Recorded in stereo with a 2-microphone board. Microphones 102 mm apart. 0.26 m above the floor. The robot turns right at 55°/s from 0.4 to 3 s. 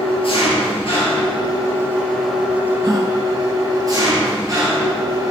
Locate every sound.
0.0 s an engine running: 80° left, 4 m; by 5.3 s 140° right, 4 m
2.8 s a gasp: 45° right (ahead or behind), 2 m; by 3.1 s 40° right (ahead or behind), 2 m